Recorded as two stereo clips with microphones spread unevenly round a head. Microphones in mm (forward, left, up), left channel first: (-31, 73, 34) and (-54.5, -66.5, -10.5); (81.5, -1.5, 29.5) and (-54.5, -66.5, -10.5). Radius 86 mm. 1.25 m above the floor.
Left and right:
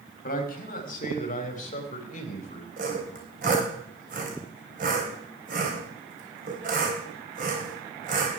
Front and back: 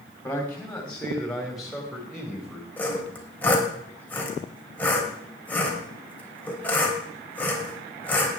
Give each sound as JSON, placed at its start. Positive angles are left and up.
{"t": 0.2, "sound": "a man speaking", "azimuth_deg": 105, "distance_m": 3.0}
{"t": 2.8, "sound": "sawing", "azimuth_deg": -50, "distance_m": 3.5}